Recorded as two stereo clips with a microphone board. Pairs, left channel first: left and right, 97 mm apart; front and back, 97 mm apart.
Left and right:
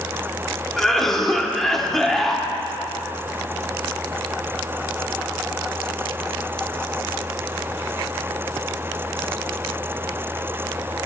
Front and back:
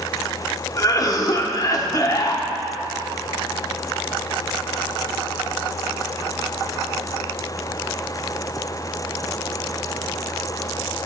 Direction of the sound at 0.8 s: 5° left.